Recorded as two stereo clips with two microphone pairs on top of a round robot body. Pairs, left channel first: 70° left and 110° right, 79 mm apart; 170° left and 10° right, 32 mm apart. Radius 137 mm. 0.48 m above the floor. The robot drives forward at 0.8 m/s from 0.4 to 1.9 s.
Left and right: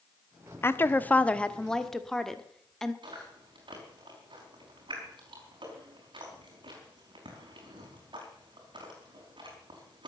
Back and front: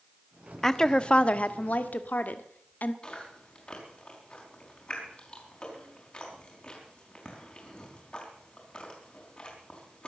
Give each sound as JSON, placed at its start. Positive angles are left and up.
{"t": 0.6, "sound": "a woman speaking", "azimuth_deg": 90, "distance_m": 1.1}
{"t": 3.0, "sound": "chewing", "azimuth_deg": -135, "distance_m": 4.5}